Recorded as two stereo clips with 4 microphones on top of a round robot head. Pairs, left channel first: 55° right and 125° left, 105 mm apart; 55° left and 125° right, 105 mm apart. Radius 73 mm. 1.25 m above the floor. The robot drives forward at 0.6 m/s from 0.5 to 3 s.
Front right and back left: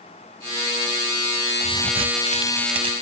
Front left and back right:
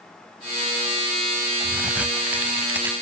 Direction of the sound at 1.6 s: 155° left.